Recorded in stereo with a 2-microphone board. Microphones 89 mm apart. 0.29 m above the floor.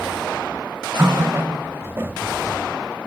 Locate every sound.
1.0 s a running tap: 25° right (ahead or behind), 0.6 m